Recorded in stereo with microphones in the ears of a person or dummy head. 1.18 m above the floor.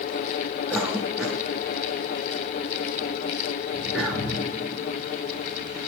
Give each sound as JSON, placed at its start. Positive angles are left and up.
{"t": 0.7, "sound": "a cough", "side_deg": 0, "distance_m": 3.0}